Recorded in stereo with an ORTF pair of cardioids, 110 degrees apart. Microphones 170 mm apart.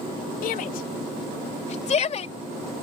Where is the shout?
60° left; by 2.3 s 40° left.